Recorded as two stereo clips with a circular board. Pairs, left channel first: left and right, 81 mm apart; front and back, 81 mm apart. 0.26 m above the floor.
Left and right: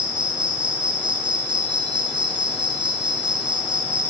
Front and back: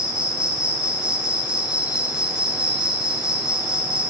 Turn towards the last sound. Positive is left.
turn(degrees=-100)